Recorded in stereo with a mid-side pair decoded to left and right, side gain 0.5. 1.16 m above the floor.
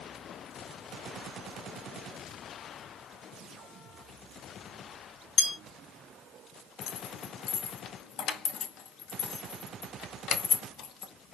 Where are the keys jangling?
65° left, 0.5 m.